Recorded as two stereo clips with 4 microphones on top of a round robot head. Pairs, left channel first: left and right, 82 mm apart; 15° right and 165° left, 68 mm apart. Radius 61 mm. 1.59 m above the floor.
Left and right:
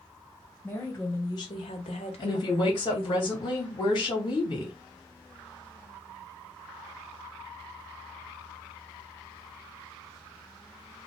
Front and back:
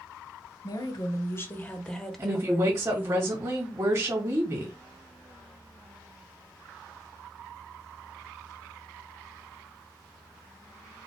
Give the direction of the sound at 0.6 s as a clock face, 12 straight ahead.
11 o'clock.